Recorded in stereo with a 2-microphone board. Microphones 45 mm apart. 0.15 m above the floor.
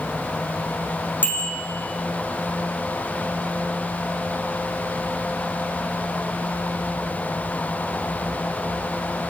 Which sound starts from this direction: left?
A bicycle bell, at 1.2 s.